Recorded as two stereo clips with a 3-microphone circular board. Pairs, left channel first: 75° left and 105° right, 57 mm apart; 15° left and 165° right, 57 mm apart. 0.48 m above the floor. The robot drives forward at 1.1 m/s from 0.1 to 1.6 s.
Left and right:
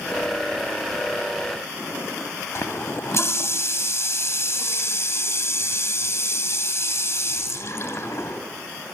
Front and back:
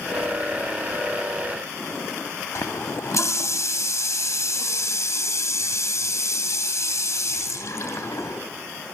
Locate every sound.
2.5 s a running tap: 40° left, 2 m